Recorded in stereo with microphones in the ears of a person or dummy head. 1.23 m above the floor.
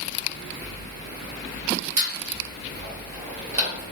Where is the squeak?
35° right (ahead or behind), 1.4 m.